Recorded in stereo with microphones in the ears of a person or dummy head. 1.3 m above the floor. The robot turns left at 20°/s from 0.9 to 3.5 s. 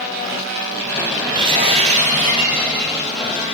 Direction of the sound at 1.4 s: 25° right.